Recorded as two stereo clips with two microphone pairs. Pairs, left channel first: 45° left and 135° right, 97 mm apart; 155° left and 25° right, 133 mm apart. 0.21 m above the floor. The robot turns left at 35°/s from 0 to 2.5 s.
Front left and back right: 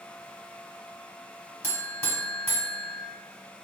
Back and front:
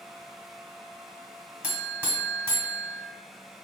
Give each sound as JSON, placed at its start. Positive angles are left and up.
{"t": 1.6, "sound": "a buzzer", "azimuth_deg": 45, "distance_m": 1.0}